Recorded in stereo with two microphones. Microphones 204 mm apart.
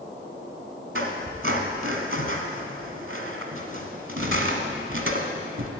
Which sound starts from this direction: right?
A squeak, at 0.9 s.